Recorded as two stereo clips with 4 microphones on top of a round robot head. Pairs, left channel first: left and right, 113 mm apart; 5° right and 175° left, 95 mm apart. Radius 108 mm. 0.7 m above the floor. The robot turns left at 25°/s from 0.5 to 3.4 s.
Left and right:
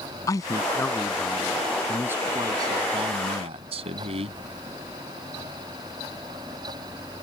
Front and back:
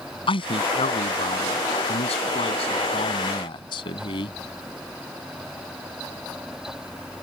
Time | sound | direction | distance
0.3 | a man speaking | 25° left | ?